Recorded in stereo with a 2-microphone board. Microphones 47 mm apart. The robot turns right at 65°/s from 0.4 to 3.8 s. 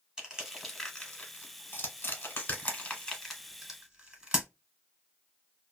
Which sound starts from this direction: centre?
Crushing, at 0.2 s.